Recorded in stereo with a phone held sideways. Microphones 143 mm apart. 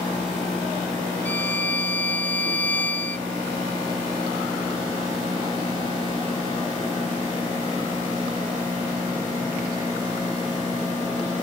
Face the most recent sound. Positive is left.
turn(degrees=10)  # may be behind; listen again after turning